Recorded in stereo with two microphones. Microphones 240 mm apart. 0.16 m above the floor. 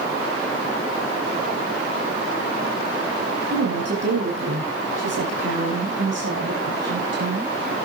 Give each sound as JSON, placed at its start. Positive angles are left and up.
{"t": 3.5, "sound": "a woman speaking", "side_deg": -75, "distance_m": 6.0}